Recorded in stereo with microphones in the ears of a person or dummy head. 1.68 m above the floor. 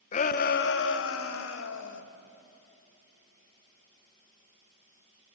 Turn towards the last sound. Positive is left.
turn(degrees=80)